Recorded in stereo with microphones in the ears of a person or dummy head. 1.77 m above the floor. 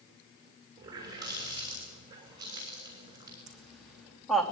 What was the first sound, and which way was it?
A running tap, 20° right (ahead or behind).